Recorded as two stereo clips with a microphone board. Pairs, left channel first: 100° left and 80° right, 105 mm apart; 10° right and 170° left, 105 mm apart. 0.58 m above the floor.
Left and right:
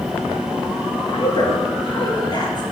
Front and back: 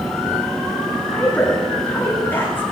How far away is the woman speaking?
About 6.5 m.